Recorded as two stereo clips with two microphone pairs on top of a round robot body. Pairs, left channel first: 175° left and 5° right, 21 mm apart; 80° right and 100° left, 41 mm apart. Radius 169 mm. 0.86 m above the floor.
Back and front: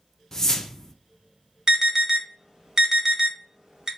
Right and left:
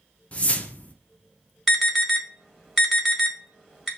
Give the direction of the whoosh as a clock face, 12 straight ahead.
5 o'clock.